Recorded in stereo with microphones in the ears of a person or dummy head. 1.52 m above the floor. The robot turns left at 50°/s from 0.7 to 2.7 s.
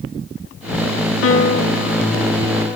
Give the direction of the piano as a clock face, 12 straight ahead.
9 o'clock.